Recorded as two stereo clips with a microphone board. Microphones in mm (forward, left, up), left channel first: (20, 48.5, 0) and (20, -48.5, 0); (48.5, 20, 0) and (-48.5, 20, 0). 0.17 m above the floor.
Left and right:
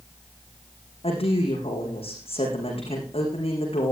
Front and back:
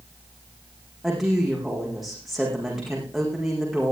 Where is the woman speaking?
90° left, 10 m.